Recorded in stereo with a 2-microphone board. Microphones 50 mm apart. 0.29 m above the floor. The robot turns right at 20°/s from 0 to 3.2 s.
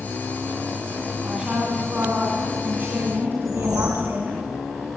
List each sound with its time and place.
1.2 s a woman speaking: 160° right, 2.5 m; by 4.4 s 125° right, 2.5 m
3.4 s a whoosh: 70° right (ahead or behind), 7 m